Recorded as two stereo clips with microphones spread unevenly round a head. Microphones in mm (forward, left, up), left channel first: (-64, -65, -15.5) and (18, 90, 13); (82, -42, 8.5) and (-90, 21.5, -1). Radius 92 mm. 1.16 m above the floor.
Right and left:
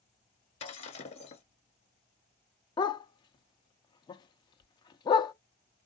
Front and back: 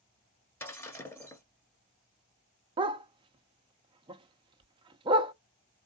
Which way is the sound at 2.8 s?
170° right.